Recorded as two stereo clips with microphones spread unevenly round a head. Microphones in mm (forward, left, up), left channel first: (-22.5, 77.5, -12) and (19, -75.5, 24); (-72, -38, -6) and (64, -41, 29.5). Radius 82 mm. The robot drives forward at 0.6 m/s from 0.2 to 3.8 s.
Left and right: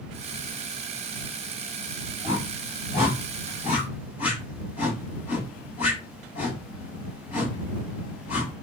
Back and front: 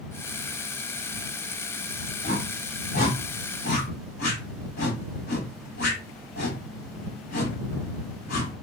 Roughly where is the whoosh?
Behind.